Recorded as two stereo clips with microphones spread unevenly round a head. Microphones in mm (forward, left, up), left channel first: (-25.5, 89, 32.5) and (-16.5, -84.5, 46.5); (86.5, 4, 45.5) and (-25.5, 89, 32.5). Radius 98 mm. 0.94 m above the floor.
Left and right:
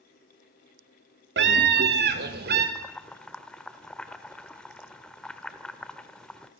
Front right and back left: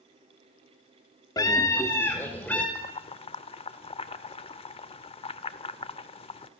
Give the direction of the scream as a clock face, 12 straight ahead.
4 o'clock.